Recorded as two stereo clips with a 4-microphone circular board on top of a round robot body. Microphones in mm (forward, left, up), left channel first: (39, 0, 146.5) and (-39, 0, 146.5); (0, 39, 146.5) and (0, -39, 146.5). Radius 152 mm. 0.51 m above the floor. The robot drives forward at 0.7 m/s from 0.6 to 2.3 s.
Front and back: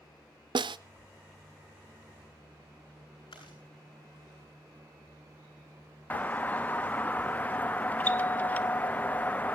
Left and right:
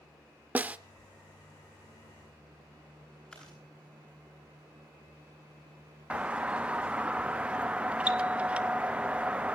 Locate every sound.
0.6 s a snare drum: 160° right, 0.7 m; by 0.8 s 165° right, 0.8 m
3.3 s chewing: 10° left, 9 m
6.1 s a doorbell: 35° right, 1.2 m